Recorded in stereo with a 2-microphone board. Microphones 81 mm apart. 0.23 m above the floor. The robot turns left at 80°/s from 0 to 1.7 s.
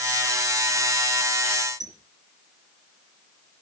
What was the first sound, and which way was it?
A squeak, 60° right (ahead or behind).